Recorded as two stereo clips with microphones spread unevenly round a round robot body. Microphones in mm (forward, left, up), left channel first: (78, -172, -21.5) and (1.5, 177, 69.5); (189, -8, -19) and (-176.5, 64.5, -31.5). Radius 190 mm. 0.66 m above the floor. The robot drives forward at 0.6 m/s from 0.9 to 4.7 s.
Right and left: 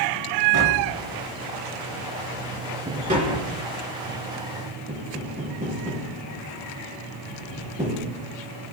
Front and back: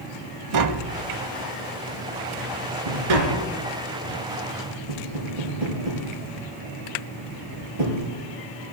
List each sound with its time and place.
0.5 s tapping: 140° left, 0.6 m; by 8.2 s 175° left, 2.5 m